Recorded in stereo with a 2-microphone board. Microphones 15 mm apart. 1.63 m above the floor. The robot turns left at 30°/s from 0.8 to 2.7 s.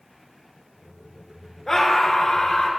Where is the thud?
I don't hear a thud.